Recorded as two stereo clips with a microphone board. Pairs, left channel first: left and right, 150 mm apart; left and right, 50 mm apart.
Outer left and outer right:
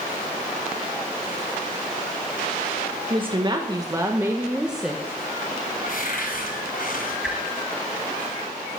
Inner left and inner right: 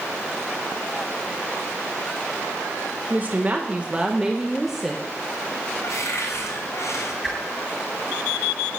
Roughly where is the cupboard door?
Left.